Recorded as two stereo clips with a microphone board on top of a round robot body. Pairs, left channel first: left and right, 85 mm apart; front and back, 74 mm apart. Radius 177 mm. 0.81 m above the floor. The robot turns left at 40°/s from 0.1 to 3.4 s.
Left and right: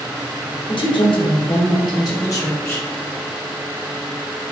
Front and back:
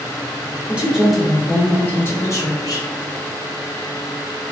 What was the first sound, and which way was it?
A woman speaking, 110° left.